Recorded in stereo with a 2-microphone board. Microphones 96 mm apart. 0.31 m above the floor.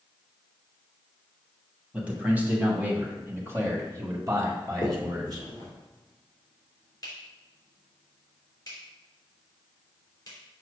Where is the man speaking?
15° right (ahead or behind), 2 m; by 5.5 s 45° right (ahead or behind), 1.6 m.